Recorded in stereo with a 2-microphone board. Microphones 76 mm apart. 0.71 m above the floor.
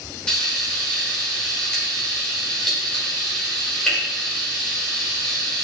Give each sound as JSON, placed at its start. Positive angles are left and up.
{"t": 0.3, "sound": "frying", "side_deg": 10, "distance_m": 1.2}